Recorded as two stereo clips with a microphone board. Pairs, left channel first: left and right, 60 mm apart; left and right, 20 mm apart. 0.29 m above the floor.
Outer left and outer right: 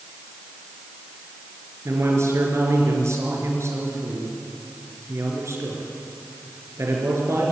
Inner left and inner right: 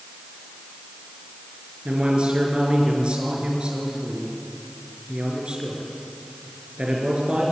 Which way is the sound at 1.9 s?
50° right (ahead or behind).